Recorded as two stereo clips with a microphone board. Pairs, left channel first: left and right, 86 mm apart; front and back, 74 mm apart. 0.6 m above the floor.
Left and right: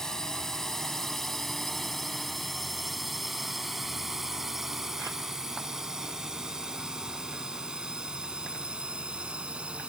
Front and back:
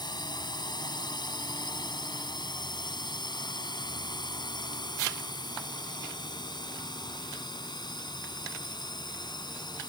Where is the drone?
5° left; by 9.9 s 10° right.